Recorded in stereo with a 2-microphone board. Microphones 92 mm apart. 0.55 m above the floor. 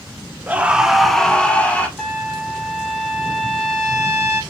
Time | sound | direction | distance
0.5 | a scream | 15° right (ahead or behind) | 0.7 m
2.0 | a trumpet | 5° left (ahead or behind) | 0.9 m